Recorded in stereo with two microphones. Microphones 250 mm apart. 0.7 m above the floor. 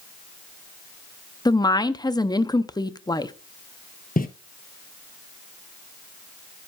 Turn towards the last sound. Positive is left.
turn(degrees=35)  # may be behind; listen again after turning